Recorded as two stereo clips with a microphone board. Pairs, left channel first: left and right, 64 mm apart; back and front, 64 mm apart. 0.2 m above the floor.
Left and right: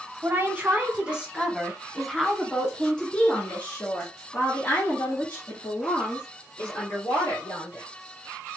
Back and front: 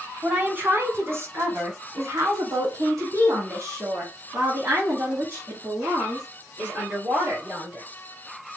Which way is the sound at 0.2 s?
50° right.